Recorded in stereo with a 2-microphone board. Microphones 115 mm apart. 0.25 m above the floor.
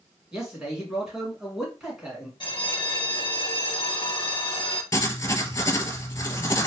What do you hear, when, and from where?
0.3 s a man speaking: 5° right (ahead or behind), 2 m
2.4 s a bell: 45° left (ahead or behind), 0.5 m
4.9 s writing: 30° left (ahead or behind), 0.7 m